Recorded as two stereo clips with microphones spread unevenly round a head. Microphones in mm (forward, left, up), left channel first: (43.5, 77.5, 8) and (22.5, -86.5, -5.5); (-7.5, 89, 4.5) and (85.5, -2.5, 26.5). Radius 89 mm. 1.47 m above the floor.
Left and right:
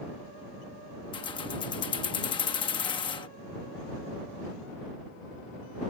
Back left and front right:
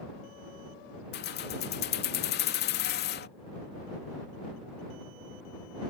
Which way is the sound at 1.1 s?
150° left.